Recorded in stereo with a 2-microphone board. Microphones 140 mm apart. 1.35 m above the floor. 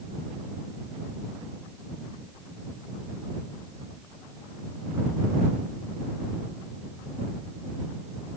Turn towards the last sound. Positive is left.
No sound to turn to.